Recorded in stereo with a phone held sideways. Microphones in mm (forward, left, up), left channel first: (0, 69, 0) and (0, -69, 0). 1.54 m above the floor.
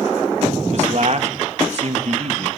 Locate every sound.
0.7 s a man speaking: 55° right (ahead or behind), 1.6 m